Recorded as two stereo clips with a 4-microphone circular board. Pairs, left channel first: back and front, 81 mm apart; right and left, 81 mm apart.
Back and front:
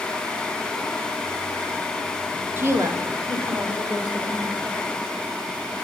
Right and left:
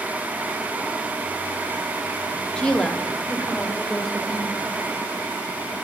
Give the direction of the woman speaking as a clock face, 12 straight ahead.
1 o'clock.